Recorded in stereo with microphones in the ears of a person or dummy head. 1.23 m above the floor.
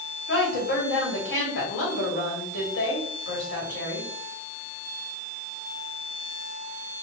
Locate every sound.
0.3 s a woman speaking: 65° left (ahead or behind), 1.9 m